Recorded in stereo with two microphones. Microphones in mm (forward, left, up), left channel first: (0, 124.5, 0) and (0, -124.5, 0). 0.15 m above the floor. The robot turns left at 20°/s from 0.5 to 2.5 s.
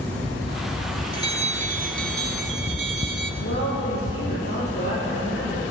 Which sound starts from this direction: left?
A woman speaking, at 3.4 s.